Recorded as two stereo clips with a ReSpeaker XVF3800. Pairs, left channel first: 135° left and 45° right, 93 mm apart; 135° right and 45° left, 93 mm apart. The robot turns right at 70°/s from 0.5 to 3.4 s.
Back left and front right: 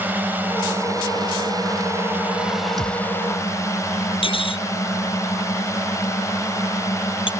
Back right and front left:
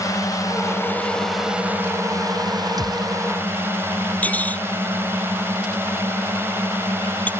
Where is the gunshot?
Straight ahead; by 3.2 s 25° left.